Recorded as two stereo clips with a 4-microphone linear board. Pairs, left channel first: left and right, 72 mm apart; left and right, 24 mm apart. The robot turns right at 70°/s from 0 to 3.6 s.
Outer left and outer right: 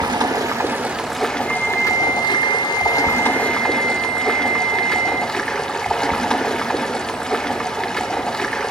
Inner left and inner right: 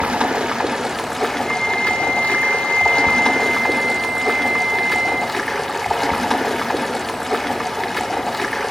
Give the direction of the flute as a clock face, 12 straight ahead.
7 o'clock.